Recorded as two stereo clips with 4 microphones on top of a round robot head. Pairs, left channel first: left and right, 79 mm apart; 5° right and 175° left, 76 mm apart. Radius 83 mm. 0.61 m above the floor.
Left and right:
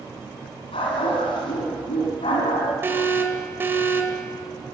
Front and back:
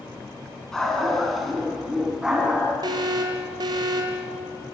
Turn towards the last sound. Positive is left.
turn(degrees=-150)